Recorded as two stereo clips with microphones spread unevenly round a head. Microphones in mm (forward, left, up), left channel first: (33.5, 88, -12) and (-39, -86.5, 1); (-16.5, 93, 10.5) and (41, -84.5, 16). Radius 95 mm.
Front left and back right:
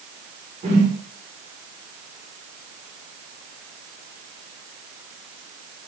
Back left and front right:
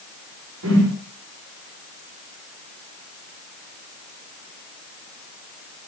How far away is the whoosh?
About 4.5 m.